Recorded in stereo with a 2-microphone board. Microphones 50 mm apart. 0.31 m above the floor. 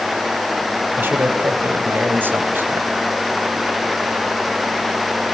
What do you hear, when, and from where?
0.9 s a man speaking: 45° right (ahead or behind), 2 m